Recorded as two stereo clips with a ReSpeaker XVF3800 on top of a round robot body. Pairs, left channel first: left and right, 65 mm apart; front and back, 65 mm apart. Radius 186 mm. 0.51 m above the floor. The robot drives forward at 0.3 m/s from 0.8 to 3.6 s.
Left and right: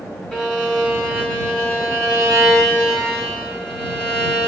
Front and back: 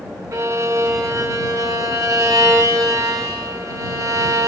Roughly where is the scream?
No scream in this recording.